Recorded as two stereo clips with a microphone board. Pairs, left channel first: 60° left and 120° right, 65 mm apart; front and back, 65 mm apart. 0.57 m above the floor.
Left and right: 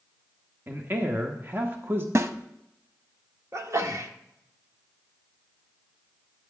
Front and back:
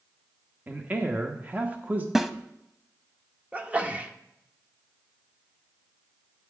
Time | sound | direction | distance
0.7 | a man speaking | 135° right | 0.9 m
2.1 | a snare drum | 95° right | 0.6 m
3.5 | a sneeze | 115° right | 0.9 m